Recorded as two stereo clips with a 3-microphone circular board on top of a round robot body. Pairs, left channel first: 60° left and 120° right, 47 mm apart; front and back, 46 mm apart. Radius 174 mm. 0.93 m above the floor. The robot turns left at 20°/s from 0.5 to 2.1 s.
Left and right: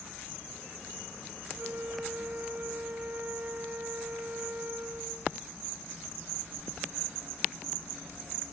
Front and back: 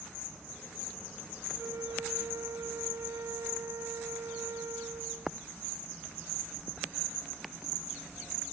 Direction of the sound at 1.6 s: 165° right.